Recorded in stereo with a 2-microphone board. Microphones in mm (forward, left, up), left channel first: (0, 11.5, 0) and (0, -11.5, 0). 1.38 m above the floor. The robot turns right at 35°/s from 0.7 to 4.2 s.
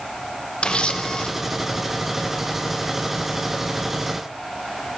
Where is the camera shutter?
55° left (ahead or behind), 0.6 m; by 1.3 s 50° left (ahead or behind), 0.6 m.